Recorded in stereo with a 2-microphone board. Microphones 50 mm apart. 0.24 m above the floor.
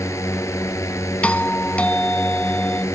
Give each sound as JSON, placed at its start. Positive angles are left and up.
{"t": 0.0, "sound": "a drone", "side_deg": 70}
{"t": 1.2, "sound": "a doorbell", "side_deg": 25}